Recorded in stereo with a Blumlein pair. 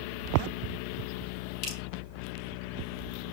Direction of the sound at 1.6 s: 30° left.